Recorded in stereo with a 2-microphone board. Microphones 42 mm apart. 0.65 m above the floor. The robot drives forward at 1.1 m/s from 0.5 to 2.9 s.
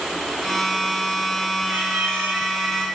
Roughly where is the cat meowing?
Right.